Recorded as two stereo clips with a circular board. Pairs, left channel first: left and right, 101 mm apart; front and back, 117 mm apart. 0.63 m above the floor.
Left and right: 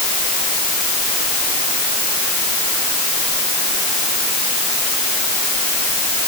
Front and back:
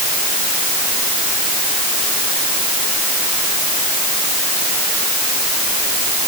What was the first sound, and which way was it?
Only background noise.